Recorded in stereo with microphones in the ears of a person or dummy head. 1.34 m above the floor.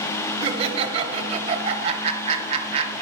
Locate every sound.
0.4 s laughter: 30° right (ahead or behind), 0.8 m